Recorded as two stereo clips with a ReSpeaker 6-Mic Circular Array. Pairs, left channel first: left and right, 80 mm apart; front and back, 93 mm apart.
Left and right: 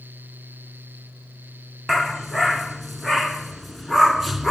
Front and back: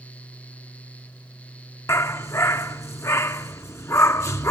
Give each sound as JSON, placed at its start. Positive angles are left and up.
{"t": 1.9, "sound": "a dog barking", "azimuth_deg": 0, "distance_m": 0.6}